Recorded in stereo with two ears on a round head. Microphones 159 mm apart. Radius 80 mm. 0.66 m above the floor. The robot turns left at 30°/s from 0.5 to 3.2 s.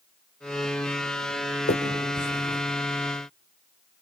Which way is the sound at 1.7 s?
60° left (ahead or behind).